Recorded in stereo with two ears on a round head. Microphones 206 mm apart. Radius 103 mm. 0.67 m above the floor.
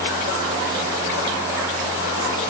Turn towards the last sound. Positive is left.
No sound to turn to.